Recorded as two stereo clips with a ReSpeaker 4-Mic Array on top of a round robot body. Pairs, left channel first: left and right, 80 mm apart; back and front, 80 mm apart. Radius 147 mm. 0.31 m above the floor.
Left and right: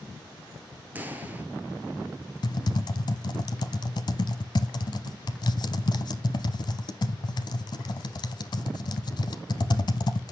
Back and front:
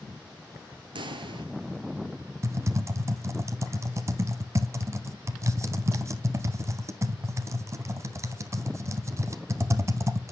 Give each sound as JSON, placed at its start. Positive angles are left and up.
{"t": 0.9, "sound": "a pop", "azimuth_deg": -20, "distance_m": 1.5}
{"t": 2.4, "sound": "typing on a keyboard", "azimuth_deg": 55, "distance_m": 0.6}